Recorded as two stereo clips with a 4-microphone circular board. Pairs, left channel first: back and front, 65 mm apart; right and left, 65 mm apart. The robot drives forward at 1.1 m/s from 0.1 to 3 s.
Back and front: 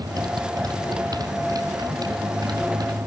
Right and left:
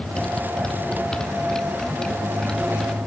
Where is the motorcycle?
10° right.